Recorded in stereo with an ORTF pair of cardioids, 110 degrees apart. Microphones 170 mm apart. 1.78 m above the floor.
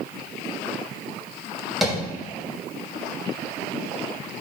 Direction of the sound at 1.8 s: Straight ahead.